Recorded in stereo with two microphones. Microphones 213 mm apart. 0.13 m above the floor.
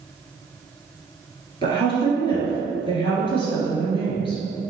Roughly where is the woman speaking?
Left.